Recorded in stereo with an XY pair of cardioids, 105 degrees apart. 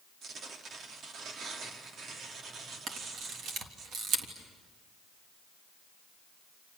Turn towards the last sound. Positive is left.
turn(degrees=-70)